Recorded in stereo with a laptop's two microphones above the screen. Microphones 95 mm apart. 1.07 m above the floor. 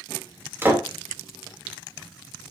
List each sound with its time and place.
0.6 s a door slam: 25° right (ahead or behind), 2.5 m